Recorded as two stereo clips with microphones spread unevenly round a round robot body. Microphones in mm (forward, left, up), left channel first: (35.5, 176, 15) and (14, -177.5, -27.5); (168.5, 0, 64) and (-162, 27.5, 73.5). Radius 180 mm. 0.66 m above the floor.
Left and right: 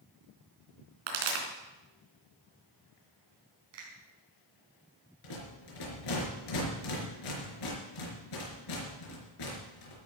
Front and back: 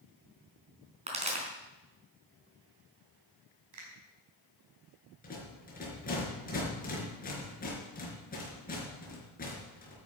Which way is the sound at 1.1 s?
115° right.